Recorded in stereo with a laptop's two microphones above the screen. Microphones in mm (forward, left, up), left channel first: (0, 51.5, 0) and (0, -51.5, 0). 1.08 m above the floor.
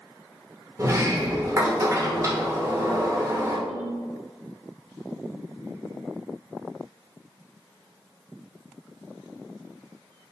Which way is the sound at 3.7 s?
70° left (ahead or behind).